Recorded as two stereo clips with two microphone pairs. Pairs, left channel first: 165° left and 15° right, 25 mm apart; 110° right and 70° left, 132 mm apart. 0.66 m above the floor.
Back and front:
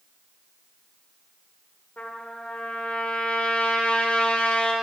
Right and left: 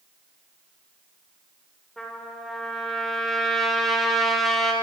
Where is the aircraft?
I don't hear an aircraft.